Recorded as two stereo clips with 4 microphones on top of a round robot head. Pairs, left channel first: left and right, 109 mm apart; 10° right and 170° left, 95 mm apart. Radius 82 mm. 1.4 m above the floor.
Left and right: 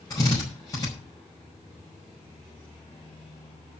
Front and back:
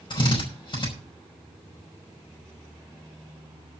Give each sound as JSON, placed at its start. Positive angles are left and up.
{"t": 0.1, "sound": "a drill", "azimuth_deg": 25, "distance_m": 5.5}